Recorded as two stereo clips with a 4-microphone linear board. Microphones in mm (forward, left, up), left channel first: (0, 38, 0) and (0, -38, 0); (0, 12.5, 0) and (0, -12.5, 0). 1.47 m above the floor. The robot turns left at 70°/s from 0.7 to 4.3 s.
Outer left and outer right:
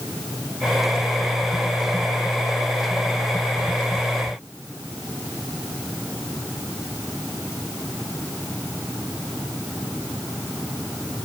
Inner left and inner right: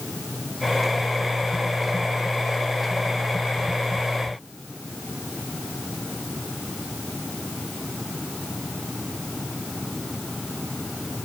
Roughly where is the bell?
No bell in this recording.